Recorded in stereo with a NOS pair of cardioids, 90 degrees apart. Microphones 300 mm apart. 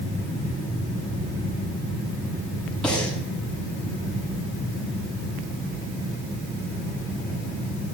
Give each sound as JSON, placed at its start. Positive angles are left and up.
{"t": 2.8, "sound": "breathing", "azimuth_deg": 5, "distance_m": 8.0}